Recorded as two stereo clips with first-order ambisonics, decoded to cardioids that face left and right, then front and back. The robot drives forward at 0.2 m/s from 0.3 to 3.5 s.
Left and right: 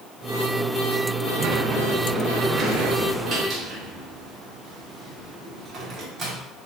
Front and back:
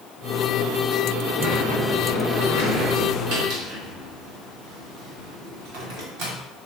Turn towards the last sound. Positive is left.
turn(degrees=-155)